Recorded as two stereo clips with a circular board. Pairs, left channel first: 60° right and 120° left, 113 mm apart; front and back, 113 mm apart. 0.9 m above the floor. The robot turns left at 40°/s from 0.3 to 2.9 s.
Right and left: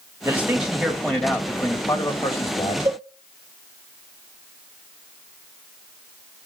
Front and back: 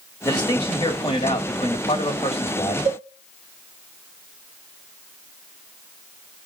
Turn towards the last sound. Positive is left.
turn(degrees=175)